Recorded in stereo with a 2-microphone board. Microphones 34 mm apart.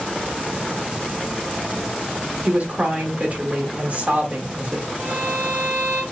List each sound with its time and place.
2.5 s a woman speaking: 45° right (ahead or behind), 1.2 m
5.0 s a violin: 70° right (ahead or behind), 1.1 m